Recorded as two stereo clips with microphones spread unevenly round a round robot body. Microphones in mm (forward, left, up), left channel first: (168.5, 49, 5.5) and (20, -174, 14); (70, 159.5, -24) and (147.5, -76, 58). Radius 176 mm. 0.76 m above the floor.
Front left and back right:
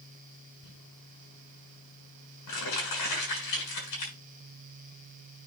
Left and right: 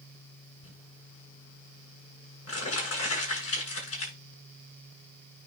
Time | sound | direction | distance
0.6 | crumpling | 80° left | 7 m